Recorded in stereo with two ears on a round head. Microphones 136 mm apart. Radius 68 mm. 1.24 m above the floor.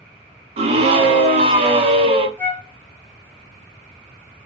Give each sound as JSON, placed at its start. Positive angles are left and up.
{"t": 0.6, "sound": "a scream", "side_deg": -40, "distance_m": 0.7}
{"t": 2.4, "sound": "a flute", "side_deg": 15, "distance_m": 0.5}